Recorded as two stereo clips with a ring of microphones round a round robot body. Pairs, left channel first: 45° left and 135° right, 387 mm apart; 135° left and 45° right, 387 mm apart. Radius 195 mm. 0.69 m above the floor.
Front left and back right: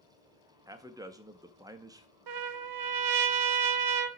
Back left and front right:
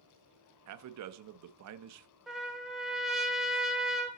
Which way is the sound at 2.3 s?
135° right.